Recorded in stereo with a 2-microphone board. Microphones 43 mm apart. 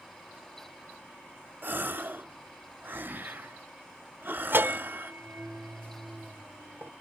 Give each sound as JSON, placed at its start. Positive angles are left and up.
{"t": 1.6, "sound": "a gasp", "side_deg": -55, "distance_m": 0.8}
{"t": 4.5, "sound": "a bell", "side_deg": -55, "distance_m": 0.5}